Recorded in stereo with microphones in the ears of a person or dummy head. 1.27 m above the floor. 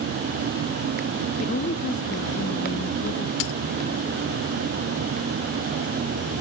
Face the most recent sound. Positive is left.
turn(degrees=65)  # may be behind; listen again after turning